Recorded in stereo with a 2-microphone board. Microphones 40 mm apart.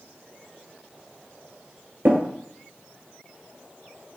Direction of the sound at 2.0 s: 60° right (ahead or behind).